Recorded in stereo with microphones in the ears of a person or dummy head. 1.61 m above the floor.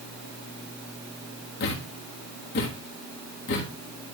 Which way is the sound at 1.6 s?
45° left (ahead or behind).